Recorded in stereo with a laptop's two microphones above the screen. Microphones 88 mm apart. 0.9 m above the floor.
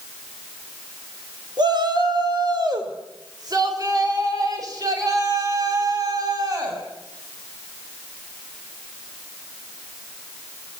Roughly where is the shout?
Right.